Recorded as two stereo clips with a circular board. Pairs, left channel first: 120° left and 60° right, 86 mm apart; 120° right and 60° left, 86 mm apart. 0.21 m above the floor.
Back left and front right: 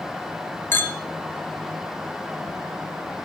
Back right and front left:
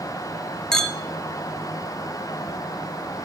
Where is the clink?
160° left, 0.8 m.